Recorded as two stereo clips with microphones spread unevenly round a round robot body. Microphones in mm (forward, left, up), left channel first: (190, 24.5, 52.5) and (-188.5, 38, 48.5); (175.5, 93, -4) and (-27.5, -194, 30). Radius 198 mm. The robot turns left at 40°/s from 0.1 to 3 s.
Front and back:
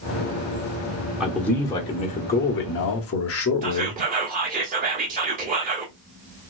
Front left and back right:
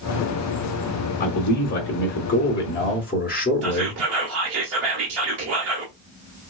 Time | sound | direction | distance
1.2 | a man speaking | 95° left | 0.9 m
3.6 | whispering | 130° right | 1.2 m